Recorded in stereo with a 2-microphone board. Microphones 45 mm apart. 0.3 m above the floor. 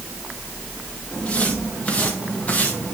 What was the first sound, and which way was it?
Footsteps, 25° left (ahead or behind).